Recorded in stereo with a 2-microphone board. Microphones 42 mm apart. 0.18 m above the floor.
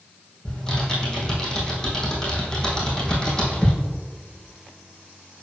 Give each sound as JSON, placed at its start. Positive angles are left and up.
{"t": 0.5, "sound": "typing on a keyboard", "side_deg": 15, "distance_m": 2.5}